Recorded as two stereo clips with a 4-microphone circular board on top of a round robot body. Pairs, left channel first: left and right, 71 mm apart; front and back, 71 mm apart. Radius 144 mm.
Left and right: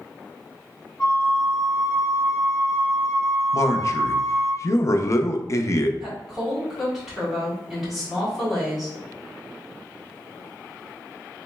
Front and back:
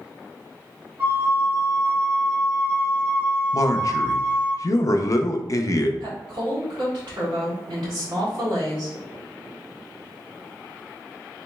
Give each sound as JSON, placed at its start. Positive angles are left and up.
{"t": 1.0, "sound": "a flute", "azimuth_deg": 125, "distance_m": 1.7}
{"t": 3.5, "sound": "a man speaking", "azimuth_deg": 45, "distance_m": 0.5}
{"t": 6.0, "sound": "a woman speaking", "azimuth_deg": -175, "distance_m": 1.8}